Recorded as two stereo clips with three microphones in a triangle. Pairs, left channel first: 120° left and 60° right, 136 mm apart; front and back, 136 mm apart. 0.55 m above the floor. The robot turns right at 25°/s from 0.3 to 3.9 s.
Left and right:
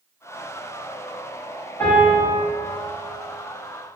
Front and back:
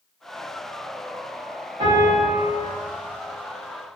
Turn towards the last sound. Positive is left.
turn(degrees=-125)